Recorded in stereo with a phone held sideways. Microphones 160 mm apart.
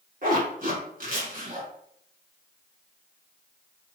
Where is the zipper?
60° right (ahead or behind), 1.2 m.